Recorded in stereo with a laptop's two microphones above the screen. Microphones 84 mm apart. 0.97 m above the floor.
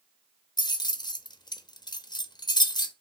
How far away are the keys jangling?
About 0.6 m.